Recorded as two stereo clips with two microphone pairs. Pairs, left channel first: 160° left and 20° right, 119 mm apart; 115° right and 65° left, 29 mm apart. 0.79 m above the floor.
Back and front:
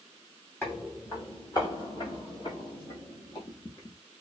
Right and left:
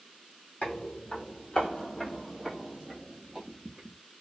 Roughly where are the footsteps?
Behind right.